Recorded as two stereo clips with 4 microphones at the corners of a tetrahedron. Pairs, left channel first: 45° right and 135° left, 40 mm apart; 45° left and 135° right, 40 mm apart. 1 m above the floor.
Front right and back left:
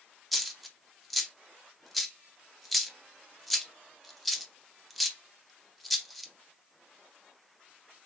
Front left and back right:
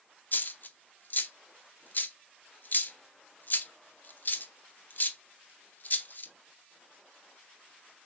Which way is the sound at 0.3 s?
45° left.